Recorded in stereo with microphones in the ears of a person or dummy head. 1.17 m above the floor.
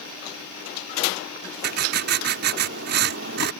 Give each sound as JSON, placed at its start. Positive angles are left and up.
{"t": 1.6, "sound": "writing", "side_deg": -55}